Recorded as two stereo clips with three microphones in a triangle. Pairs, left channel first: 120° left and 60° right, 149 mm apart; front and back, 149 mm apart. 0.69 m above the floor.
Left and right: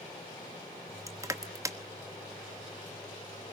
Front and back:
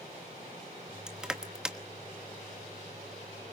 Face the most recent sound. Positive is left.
turn(degrees=-100)